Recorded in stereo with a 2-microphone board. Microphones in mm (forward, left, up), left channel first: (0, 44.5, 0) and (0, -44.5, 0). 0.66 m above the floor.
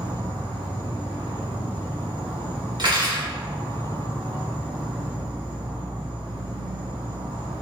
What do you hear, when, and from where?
0.0 s an insect: 60° right (ahead or behind), 1.7 m
2.8 s cutlery clinking: 55° right (ahead or behind), 0.8 m